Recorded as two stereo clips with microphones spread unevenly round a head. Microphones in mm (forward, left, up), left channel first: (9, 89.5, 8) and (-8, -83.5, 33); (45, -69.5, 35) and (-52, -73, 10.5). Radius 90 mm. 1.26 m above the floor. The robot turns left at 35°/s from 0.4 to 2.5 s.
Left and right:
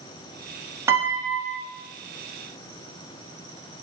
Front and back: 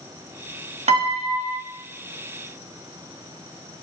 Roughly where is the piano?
Behind.